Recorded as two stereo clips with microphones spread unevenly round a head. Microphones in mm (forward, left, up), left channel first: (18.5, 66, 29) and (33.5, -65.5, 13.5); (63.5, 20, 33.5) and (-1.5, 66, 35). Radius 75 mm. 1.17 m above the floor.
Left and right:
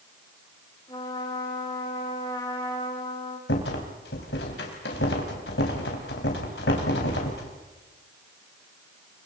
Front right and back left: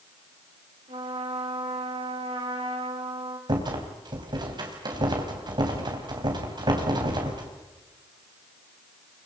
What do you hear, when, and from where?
0.9 s a trumpet: 165° left, 4.5 m
3.5 s a rattle: 115° left, 4 m